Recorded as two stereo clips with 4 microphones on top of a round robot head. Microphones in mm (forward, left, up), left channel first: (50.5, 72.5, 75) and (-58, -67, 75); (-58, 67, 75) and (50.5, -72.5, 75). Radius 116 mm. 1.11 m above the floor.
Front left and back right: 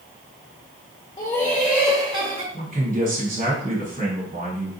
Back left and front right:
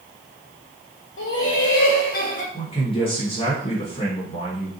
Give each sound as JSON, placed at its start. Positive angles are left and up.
{"t": 1.2, "sound": "laughter", "azimuth_deg": 120, "distance_m": 0.7}
{"t": 2.5, "sound": "a man speaking", "azimuth_deg": -175, "distance_m": 1.9}